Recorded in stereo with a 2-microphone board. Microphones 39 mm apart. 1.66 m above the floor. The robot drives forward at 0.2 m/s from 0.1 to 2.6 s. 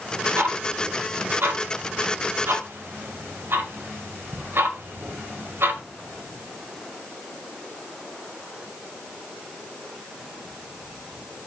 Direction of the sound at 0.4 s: 65° right (ahead or behind).